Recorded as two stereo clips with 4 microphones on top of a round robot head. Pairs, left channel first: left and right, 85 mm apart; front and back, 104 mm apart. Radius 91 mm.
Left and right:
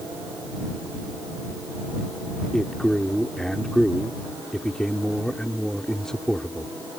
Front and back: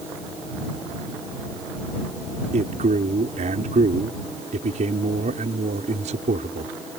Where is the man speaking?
175° left.